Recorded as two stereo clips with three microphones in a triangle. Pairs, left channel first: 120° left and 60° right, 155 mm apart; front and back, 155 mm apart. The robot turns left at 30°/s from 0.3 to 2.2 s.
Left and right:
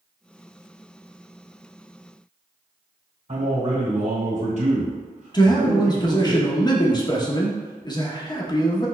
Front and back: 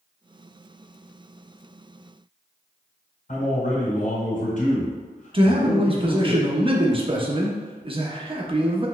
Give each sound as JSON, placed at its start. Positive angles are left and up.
{"t": 3.3, "sound": "a man speaking", "azimuth_deg": -25, "distance_m": 1.9}
{"t": 5.3, "sound": "a man speaking", "azimuth_deg": 165, "distance_m": 0.7}